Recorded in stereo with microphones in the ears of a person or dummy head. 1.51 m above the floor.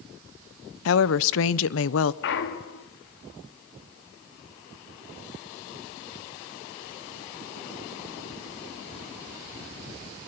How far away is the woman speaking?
About 0.8 m.